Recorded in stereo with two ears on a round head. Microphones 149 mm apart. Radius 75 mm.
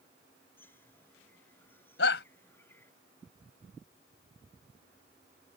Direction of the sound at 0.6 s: 15° left (ahead or behind).